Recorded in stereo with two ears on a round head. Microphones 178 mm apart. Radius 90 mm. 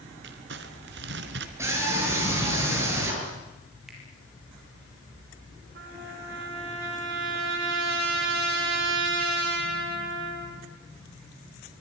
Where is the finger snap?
Centre (ahead or behind), 7.5 m.